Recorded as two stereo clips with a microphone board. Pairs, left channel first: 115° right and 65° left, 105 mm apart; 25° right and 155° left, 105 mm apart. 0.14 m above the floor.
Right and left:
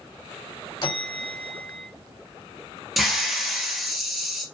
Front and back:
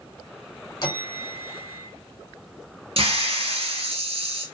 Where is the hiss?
155° left, 0.9 m.